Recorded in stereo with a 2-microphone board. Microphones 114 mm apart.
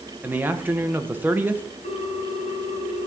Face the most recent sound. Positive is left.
turn(degrees=70)  # may be behind; listen again after turning